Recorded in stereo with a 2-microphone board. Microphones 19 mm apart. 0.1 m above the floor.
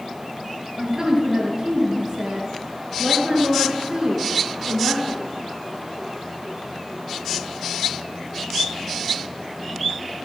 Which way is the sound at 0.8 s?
40° right (ahead or behind).